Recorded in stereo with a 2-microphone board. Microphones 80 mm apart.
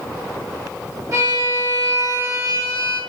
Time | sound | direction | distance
1.1 | a violin | 50° right (ahead or behind) | 2.5 m